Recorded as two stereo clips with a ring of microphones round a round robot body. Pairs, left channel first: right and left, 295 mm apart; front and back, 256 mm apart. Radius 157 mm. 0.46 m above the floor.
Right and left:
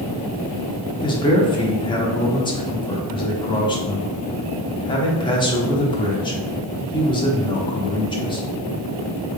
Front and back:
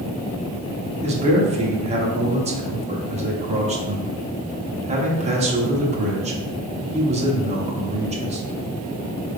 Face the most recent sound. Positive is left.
turn(degrees=-150)